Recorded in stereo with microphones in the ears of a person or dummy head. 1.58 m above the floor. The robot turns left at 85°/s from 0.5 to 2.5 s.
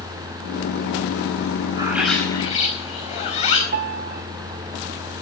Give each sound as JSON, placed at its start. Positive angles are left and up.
{"t": 1.8, "sound": "a bird", "azimuth_deg": -150, "distance_m": 4.5}
{"t": 3.7, "sound": "a piano", "side_deg": -50, "distance_m": 1.8}